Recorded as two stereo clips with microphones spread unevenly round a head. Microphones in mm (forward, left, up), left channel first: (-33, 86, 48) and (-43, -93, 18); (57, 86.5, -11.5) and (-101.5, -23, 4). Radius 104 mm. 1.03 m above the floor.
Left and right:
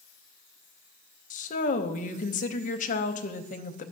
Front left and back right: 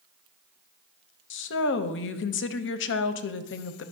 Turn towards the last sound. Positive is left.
turn(degrees=35)